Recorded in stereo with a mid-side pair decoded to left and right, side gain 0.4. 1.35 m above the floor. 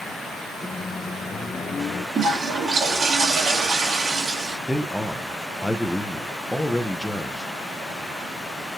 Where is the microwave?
40° left, 1.0 m.